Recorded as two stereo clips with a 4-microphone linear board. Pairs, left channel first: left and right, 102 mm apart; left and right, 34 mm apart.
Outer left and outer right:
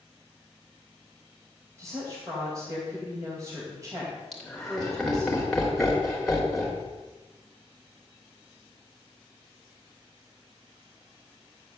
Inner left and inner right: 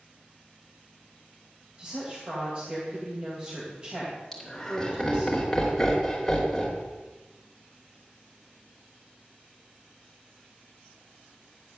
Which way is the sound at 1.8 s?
30° right (ahead or behind).